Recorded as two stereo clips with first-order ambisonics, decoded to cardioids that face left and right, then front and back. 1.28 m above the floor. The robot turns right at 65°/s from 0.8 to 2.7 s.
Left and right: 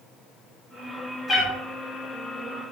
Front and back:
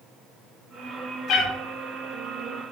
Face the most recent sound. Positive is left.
turn(degrees=105)